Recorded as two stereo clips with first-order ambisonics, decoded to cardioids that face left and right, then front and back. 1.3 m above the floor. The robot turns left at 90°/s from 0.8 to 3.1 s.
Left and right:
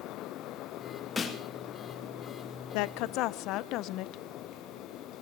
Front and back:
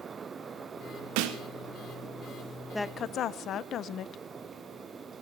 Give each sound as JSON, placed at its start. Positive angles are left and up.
{"t": 1.2, "sound": "a snare drum", "azimuth_deg": 170, "distance_m": 2.0}
{"t": 2.7, "sound": "a woman speaking", "azimuth_deg": 85, "distance_m": 0.6}